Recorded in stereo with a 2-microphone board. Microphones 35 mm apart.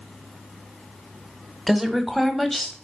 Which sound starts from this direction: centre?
A woman speaking, at 1.7 s.